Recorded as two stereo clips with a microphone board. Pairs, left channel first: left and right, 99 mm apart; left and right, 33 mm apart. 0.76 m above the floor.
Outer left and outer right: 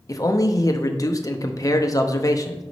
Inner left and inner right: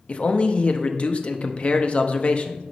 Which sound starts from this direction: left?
A man speaking, at 0.1 s.